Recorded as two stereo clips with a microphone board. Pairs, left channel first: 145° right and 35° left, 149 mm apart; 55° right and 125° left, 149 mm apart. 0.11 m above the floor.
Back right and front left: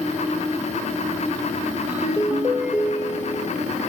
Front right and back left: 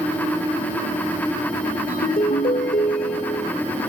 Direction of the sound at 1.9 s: 45° right.